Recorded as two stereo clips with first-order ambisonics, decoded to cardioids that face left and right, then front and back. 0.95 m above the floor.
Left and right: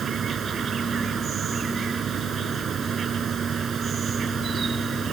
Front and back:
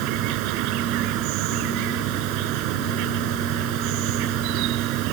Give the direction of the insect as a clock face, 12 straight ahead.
5 o'clock.